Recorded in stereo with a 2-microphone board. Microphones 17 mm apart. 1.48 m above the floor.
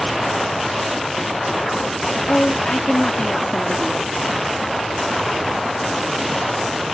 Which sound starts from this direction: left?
A woman speaking, at 2.3 s.